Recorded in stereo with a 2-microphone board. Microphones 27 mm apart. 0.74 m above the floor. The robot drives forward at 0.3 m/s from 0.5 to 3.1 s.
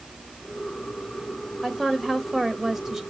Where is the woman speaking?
15° right (ahead or behind), 1.1 m; by 3.0 s 25° right (ahead or behind), 0.7 m.